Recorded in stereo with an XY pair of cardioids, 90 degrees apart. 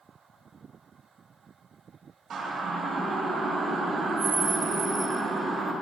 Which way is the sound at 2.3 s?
65° right.